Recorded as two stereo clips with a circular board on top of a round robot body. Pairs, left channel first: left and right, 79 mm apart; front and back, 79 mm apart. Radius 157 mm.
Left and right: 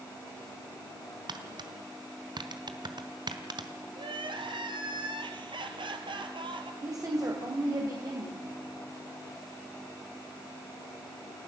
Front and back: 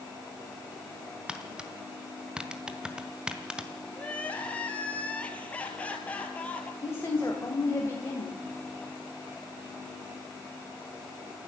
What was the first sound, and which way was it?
Tapping, 100° right.